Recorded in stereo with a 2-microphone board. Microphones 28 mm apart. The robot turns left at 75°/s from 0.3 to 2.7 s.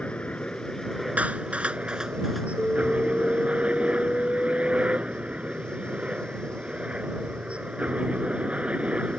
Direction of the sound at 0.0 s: 55° left.